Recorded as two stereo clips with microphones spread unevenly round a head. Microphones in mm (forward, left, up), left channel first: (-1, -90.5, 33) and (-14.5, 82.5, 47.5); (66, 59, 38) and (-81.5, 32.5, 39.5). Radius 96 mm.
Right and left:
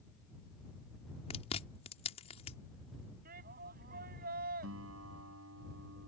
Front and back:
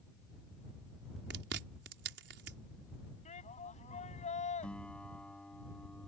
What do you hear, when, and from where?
1.3 s chewing: 145° right
3.2 s a shout: 50° left
4.6 s a guitar: 95° left